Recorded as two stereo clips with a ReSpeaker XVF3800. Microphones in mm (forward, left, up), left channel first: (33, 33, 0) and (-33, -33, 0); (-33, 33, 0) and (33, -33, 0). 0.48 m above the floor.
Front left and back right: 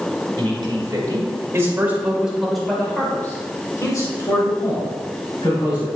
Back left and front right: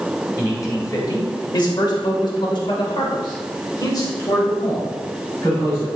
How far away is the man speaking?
About 3 m.